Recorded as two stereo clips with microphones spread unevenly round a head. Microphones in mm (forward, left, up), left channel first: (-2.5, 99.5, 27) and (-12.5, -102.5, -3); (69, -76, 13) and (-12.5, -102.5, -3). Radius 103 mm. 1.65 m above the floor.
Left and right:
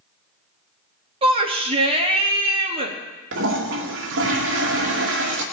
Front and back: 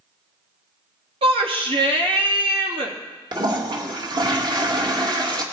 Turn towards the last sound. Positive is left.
turn(degrees=-125)